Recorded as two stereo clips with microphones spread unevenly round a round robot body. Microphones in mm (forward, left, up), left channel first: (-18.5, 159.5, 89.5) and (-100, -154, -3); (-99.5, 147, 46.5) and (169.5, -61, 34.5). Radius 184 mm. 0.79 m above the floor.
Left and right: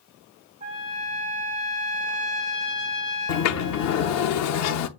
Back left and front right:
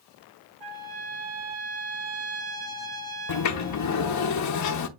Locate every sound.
0.6 s a trumpet: 60° right, 4 m
3.3 s a sliding door: 105° left, 0.7 m